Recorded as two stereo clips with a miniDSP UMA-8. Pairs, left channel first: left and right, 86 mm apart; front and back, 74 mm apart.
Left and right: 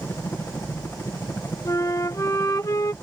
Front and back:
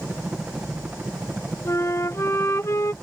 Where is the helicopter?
120° left.